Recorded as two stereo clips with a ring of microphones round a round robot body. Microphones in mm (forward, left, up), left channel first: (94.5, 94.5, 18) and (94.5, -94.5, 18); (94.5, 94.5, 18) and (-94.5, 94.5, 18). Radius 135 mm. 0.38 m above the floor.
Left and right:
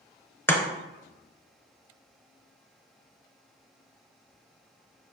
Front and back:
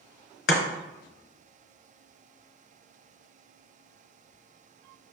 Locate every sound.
0.5 s chopping: 10° left, 1.1 m